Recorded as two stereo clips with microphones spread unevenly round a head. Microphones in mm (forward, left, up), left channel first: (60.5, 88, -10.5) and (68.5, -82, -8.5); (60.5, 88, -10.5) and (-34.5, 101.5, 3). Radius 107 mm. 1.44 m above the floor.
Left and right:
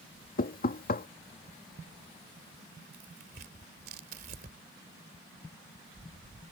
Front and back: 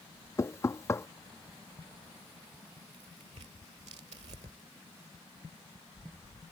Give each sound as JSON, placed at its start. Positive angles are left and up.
{"t": 0.4, "sound": "knocking", "azimuth_deg": 55}
{"t": 2.9, "sound": "tearing paper", "azimuth_deg": -140}